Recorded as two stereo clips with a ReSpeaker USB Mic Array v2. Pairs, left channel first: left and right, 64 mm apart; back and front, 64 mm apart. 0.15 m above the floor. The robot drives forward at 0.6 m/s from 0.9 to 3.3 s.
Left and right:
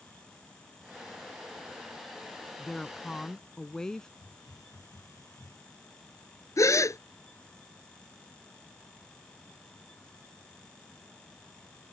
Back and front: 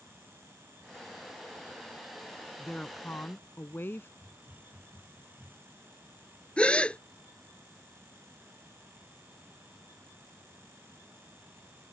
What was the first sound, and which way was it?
A woman speaking, 145° left.